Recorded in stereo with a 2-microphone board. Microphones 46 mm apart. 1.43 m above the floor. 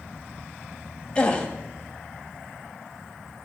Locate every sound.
1.1 s a gasp: 20° left (ahead or behind), 2 m